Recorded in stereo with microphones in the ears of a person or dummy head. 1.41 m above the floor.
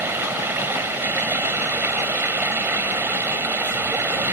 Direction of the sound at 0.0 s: 10° right (ahead or behind).